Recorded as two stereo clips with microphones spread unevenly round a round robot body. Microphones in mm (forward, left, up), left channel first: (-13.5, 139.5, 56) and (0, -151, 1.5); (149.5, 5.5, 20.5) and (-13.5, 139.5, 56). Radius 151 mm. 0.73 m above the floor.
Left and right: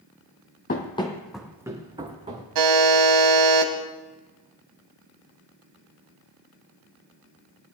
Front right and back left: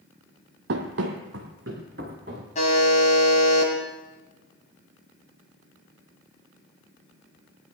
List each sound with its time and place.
0.7 s running footsteps: 140° left, 1.3 m; by 2.5 s 160° right, 2.5 m
2.5 s a buzzer: 110° right, 1.8 m